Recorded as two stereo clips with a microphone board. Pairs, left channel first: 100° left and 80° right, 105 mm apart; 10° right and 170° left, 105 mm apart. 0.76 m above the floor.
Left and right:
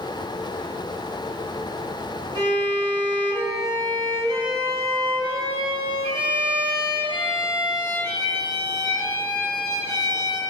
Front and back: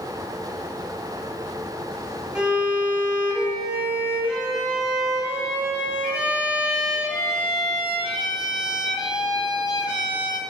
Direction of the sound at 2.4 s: 110° right.